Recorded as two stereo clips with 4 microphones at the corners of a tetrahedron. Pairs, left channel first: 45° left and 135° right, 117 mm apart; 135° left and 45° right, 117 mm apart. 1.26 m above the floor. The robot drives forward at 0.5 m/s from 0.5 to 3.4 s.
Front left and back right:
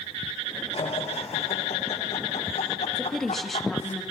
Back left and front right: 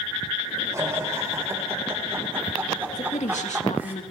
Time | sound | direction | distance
0.7 | laughter | 20° left | 4 m
3.0 | a woman speaking | 130° left | 2 m